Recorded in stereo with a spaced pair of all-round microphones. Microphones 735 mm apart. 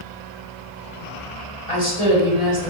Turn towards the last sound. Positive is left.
turn(degrees=45)  # may be behind; listen again after turning